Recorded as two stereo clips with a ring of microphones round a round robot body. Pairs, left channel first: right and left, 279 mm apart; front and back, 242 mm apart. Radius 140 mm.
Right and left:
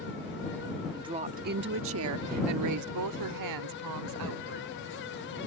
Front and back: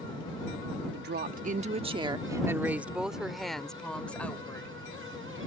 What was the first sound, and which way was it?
A woman speaking, 165° left.